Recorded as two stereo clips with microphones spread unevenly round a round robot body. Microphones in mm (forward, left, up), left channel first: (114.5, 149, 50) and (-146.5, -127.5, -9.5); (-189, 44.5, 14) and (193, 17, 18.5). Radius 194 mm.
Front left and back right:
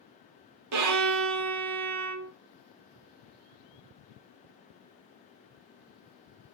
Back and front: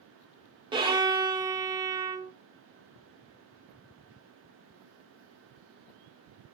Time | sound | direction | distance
0.7 | a violin | 80° right | 0.6 m